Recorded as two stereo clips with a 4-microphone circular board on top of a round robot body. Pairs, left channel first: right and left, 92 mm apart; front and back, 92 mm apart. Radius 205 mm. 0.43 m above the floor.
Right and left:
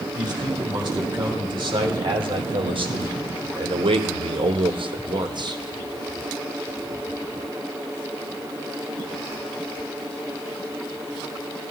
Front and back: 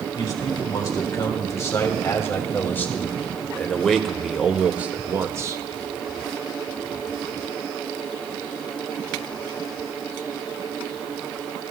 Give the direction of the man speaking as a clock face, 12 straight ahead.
10 o'clock.